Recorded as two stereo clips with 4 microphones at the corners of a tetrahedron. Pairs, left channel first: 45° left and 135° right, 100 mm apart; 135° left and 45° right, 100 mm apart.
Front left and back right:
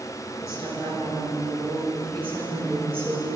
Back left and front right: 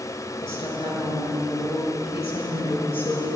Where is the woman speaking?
100° left, 6.5 m; by 3.4 s 125° left, 9 m.